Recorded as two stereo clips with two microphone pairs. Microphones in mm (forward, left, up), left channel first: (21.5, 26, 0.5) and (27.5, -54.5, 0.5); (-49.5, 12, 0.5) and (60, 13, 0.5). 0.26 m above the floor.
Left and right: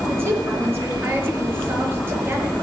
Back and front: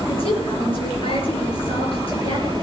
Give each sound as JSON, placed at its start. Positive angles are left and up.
{"t": 0.1, "sound": "a woman speaking", "azimuth_deg": -145, "distance_m": 4.5}